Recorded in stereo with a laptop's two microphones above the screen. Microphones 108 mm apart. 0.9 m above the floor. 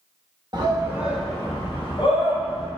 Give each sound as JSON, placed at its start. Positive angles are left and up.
{"t": 0.5, "sound": "a shout", "side_deg": -40, "distance_m": 0.8}